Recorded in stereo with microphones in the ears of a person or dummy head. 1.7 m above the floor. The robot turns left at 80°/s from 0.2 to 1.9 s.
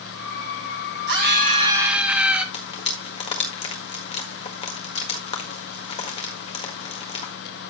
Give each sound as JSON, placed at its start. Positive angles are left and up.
{"t": 1.1, "sound": "a scream", "azimuth_deg": -105, "distance_m": 2.0}
{"t": 2.5, "sound": "frying", "side_deg": 30, "distance_m": 1.6}